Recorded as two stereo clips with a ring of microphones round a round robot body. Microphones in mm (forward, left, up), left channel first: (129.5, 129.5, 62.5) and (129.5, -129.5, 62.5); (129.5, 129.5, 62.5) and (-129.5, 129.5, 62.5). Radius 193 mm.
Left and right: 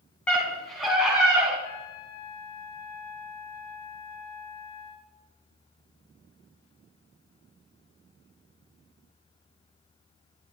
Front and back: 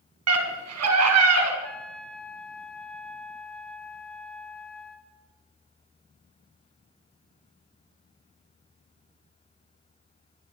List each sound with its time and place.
0.3 s a scream: 175° left, 4 m; by 1.5 s 175° right, 4.5 m
1.6 s a trumpet: 85° left, 1.9 m